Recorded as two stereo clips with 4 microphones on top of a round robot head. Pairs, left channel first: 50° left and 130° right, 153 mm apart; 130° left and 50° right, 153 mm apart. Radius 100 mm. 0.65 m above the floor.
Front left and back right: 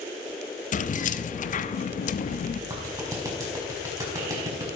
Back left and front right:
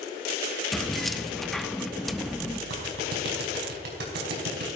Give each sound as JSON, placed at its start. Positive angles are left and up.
{"t": 0.7, "sound": "keys jangling", "azimuth_deg": 40, "distance_m": 0.8}
{"t": 2.7, "sound": "a clap", "azimuth_deg": -60, "distance_m": 5.0}